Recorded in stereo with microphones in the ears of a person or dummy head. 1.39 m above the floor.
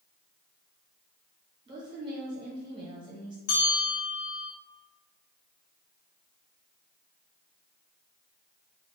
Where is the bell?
50° left (ahead or behind), 0.9 m.